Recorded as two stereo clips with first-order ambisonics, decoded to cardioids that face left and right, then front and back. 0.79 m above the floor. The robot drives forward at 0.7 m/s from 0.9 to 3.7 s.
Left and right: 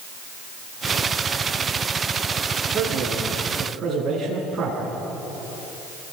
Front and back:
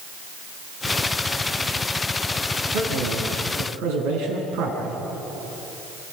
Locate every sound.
2.7 s a man speaking: 160° right, 6.5 m